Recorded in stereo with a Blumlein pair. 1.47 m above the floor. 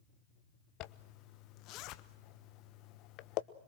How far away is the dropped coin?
No dropped coin in this recording.